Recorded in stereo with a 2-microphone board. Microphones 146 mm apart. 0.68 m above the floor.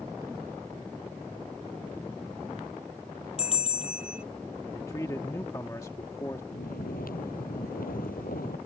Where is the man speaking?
20° left (ahead or behind).